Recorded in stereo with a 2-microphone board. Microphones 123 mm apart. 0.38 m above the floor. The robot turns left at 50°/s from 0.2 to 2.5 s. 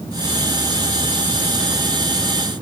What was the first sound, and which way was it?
Only background noise.